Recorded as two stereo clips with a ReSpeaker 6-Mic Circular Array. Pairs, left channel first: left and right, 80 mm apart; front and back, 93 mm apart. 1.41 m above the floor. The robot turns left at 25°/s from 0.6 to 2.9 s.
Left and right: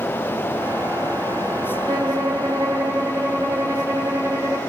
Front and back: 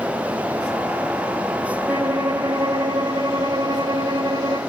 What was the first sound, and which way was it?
A violin, 115° right.